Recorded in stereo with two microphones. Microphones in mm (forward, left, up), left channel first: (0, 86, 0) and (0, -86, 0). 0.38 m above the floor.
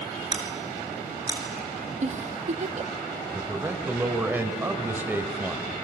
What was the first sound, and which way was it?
Scissors, 25° right (ahead or behind).